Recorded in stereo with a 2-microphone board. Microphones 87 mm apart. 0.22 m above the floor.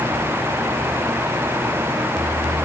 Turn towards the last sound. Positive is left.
No sound to turn to.